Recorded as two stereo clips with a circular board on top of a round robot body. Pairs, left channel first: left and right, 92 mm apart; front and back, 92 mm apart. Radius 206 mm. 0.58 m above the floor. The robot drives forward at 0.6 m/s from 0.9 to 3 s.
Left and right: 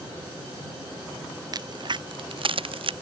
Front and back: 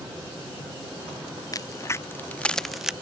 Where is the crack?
50° right; by 2.9 s 95° right.